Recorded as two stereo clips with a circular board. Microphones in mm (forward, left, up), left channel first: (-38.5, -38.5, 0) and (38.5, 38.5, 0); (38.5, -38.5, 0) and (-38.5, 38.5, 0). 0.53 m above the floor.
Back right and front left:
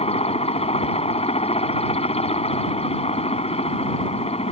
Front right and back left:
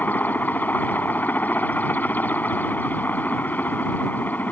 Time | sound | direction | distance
0.0 | a helicopter | 120° right | ?